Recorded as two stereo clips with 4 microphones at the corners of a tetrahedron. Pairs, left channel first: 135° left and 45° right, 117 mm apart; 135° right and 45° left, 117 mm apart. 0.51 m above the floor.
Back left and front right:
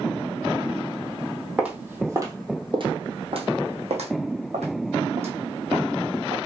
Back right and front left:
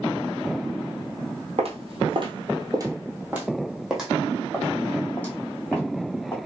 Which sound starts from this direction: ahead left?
Footsteps, at 1.6 s.